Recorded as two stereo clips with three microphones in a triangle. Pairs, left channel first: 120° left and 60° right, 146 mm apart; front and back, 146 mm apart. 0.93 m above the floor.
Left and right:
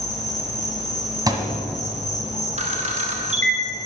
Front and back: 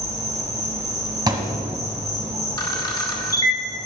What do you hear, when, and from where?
0.0 s an insect: 115° left, 1.3 m
1.3 s a thud: 120° right, 1.4 m
2.6 s a camera shutter: 55° right, 1.2 m